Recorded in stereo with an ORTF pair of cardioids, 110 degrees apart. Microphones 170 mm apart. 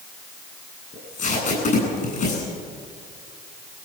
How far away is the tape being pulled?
About 9.5 m.